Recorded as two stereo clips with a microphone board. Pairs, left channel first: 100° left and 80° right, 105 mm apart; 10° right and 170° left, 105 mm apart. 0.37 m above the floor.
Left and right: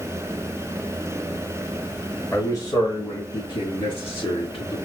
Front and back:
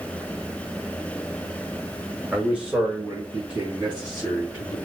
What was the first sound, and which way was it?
A man speaking, 100° left.